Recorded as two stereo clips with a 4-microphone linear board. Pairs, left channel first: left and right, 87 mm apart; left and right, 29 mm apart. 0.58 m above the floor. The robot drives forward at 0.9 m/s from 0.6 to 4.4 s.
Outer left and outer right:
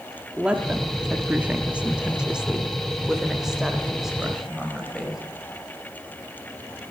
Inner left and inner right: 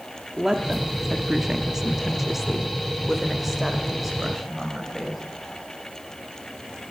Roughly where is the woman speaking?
Centre.